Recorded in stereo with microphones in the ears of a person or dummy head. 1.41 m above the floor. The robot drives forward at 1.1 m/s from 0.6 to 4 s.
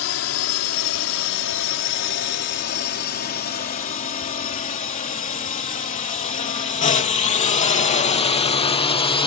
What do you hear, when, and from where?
0.0 s a drone: 75° left (ahead or behind); by 9.3 s 30° left (ahead or behind)